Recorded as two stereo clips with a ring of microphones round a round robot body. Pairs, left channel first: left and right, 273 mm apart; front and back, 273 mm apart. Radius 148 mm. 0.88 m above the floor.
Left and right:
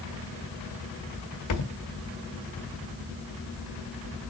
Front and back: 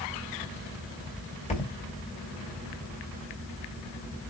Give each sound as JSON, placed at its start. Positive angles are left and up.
{"t": 1.5, "sound": "a thud", "azimuth_deg": 70, "distance_m": 1.8}